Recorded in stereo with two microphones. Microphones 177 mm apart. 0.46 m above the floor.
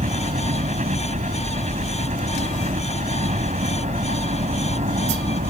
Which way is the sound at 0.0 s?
45° right (ahead or behind).